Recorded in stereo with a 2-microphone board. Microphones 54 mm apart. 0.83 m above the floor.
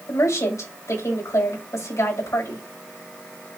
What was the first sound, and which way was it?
A woman speaking, 70° left (ahead or behind).